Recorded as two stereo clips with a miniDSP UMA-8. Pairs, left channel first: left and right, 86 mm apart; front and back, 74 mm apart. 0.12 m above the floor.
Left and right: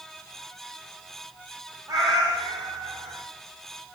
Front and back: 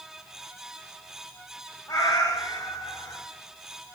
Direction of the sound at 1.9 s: 45° right.